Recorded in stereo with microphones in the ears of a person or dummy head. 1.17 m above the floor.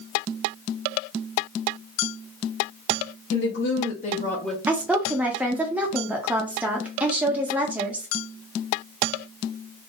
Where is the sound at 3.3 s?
55° left (ahead or behind), 1.1 m; by 4.6 s centre (ahead or behind), 0.6 m.